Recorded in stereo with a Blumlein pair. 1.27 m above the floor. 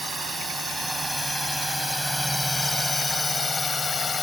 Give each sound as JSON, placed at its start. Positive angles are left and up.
{"t": 0.0, "sound": "a drone", "azimuth_deg": -5}